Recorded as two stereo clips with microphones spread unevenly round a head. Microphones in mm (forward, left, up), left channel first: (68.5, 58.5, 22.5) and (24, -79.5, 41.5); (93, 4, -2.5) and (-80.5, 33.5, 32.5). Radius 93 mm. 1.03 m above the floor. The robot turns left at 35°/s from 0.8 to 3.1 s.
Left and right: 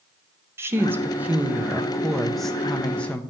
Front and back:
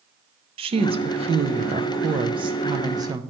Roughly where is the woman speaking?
Behind.